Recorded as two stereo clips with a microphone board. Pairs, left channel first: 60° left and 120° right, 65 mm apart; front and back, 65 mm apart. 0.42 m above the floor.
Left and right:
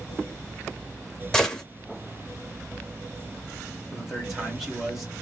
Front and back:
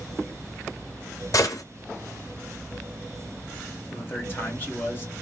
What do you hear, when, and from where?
1.3 s a gunshot: 20° right, 0.5 m
3.9 s a man speaking: 35° right, 1.0 m